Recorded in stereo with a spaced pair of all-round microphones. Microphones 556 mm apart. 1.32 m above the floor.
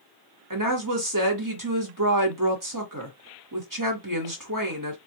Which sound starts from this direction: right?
A woman speaking, at 0.5 s.